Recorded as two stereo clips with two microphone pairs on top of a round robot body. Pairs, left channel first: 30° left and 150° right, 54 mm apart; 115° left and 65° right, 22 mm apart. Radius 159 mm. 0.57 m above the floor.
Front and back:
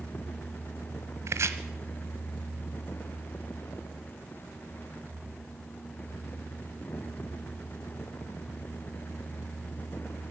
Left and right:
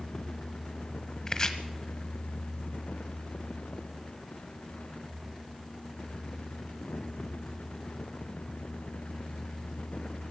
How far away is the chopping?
About 1.1 m.